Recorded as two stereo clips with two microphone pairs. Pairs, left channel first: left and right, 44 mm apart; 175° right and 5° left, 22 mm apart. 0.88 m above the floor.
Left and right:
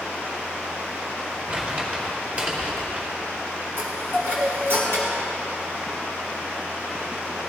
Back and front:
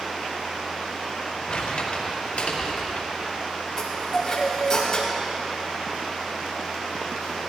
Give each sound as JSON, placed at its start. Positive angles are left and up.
{"t": 1.5, "sound": "crumpling", "azimuth_deg": -145, "distance_m": 3.0}
{"t": 3.8, "sound": "a chime", "azimuth_deg": -110, "distance_m": 4.0}